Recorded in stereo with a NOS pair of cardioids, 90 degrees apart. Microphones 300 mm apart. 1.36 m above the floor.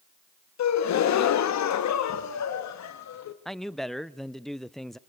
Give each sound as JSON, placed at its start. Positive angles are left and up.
{"t": 0.6, "sound": "a gasp", "azimuth_deg": 60, "distance_m": 1.4}
{"t": 3.5, "sound": "a man speaking", "azimuth_deg": 0, "distance_m": 0.5}